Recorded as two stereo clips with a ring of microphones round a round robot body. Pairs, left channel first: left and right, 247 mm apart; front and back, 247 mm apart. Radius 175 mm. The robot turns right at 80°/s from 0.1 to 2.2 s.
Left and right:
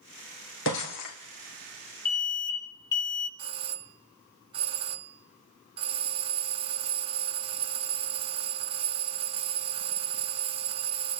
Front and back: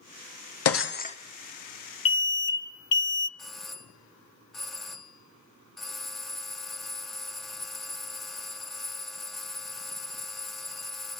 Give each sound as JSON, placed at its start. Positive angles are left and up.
{"t": 0.7, "sound": "breaking glass", "azimuth_deg": 30, "distance_m": 3.0}
{"t": 2.0, "sound": "an alarm", "azimuth_deg": 25, "distance_m": 1.3}
{"t": 3.4, "sound": "a doorbell", "azimuth_deg": -85, "distance_m": 1.4}